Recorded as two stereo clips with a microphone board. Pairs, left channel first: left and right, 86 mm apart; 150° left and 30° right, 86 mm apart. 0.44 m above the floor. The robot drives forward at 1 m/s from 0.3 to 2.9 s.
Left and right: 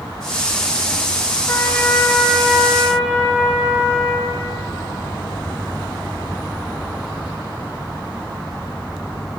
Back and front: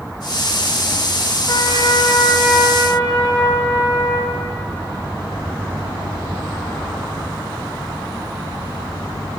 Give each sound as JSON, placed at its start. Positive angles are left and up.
{"t": 1.5, "sound": "a trumpet", "azimuth_deg": 140, "distance_m": 0.6}